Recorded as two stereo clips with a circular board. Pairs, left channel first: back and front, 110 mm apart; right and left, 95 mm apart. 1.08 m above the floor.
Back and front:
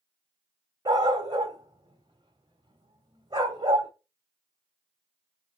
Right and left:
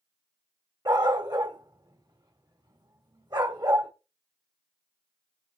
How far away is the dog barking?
About 3 m.